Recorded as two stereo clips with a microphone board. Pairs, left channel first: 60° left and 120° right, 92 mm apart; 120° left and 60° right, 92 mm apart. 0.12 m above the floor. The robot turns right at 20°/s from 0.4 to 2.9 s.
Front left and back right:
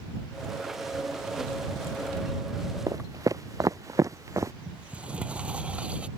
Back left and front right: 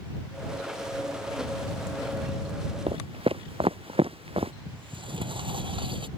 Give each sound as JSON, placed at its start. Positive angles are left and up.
{"t": 2.9, "sound": "footsteps", "azimuth_deg": -70}
{"t": 4.7, "sound": "a sliding door", "azimuth_deg": -45}